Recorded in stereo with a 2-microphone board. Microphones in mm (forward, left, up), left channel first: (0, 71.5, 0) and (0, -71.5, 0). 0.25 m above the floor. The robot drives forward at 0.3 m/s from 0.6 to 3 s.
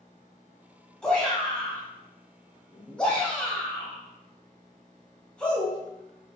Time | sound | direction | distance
1.0 | a shout | 5° left (ahead or behind) | 1.5 m